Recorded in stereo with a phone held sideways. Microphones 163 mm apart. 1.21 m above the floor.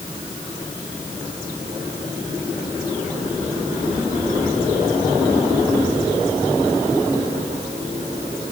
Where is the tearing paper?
No tearing paper in this recording.